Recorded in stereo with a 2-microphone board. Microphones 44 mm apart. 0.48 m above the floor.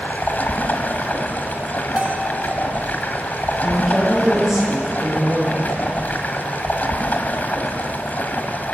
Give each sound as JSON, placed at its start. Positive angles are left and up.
{"t": 0.0, "sound": "running water", "side_deg": 40, "distance_m": 1.9}
{"t": 2.0, "sound": "a bell", "side_deg": -30, "distance_m": 2.5}
{"t": 3.6, "sound": "a woman speaking", "side_deg": -10, "distance_m": 9.5}